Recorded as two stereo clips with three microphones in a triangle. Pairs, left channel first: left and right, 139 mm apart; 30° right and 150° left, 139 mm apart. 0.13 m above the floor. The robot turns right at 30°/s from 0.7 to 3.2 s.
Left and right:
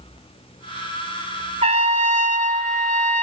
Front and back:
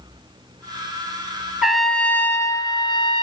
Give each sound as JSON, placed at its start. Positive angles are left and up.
{"t": 1.6, "sound": "a trumpet", "azimuth_deg": -125, "distance_m": 0.5}